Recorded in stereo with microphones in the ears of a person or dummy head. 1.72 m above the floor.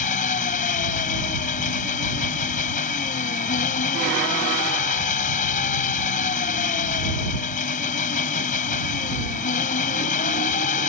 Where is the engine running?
35° left (ahead or behind).